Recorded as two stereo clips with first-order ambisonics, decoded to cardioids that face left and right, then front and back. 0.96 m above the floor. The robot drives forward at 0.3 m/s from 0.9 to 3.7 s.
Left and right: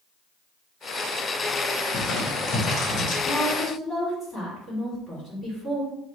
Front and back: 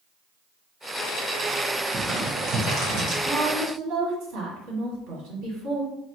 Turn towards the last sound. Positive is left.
turn(degrees=175)